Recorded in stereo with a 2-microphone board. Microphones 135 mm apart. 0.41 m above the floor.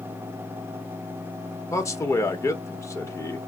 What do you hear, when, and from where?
1.7 s a man speaking: 25° left (ahead or behind), 0.9 m